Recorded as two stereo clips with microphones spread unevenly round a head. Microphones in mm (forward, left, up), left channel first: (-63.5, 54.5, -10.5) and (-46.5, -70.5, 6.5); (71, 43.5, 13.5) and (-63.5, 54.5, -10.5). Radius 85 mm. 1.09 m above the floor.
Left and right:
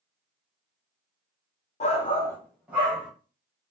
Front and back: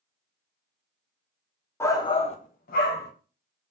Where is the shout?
70° left, 0.6 m; by 3.1 s 15° right, 0.8 m.